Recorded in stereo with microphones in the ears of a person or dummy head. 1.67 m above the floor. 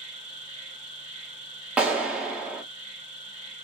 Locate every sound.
0.0 s an insect: 35° right (ahead or behind), 1.1 m
1.8 s a clap: 5° right (ahead or behind), 0.5 m